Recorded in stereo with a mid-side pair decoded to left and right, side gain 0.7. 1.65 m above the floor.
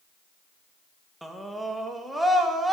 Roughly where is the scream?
Ahead.